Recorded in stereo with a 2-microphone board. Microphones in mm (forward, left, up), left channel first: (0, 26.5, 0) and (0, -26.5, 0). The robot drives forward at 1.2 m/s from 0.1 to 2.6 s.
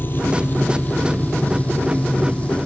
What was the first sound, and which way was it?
An engine running, 40° left (ahead or behind).